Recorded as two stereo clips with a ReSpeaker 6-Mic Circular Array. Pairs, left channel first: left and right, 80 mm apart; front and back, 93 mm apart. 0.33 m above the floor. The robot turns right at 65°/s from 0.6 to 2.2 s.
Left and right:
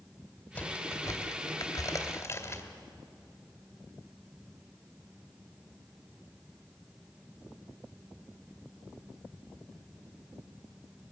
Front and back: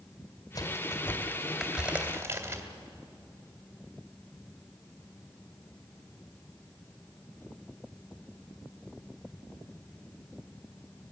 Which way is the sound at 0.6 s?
20° left.